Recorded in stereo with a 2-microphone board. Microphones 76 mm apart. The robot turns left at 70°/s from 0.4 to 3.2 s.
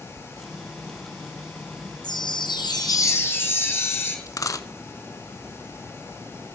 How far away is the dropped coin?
About 0.5 m.